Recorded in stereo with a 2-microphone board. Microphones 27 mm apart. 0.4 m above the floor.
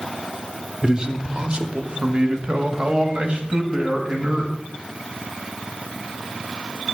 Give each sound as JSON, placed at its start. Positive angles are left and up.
{"t": 0.8, "sound": "a man speaking", "side_deg": -30, "distance_m": 1.0}